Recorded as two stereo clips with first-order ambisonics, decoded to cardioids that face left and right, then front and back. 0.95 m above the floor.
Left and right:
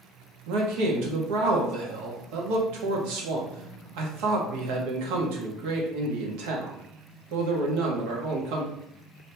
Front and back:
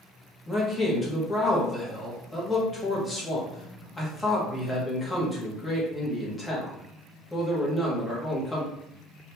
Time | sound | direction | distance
0.5 | a man speaking | 80° right | 1.1 m